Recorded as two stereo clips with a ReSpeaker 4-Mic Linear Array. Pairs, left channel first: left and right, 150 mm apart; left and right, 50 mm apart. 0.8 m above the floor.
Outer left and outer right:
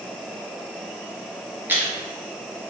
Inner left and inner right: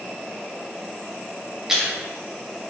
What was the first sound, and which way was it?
Chewing, 10° right (ahead or behind).